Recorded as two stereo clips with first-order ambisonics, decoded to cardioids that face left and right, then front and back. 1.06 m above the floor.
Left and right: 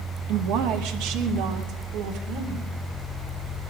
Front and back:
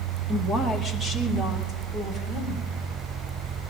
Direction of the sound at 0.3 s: 100° right.